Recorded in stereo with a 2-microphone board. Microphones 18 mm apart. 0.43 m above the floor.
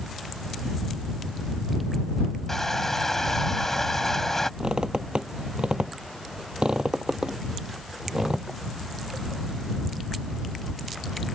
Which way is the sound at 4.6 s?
75° right (ahead or behind).